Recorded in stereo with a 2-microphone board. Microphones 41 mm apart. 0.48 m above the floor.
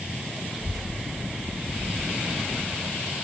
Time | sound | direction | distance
0.5 | a child speaking | 20° right (ahead or behind) | 3 m